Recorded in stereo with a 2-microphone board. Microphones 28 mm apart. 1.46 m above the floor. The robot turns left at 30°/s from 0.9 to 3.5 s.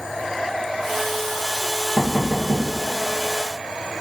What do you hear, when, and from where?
2.0 s knocking: 60° left (ahead or behind), 1.2 m; by 2.7 s 40° left (ahead or behind), 1.2 m